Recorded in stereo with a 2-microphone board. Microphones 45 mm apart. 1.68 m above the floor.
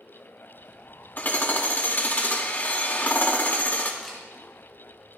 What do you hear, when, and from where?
1.2 s hammering: 45° left (ahead or behind), 2 m
4.0 s a camera shutter: 5° left (ahead or behind), 7.5 m